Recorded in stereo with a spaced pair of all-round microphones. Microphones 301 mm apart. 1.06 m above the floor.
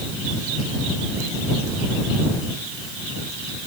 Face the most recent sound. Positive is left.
No sound to turn to.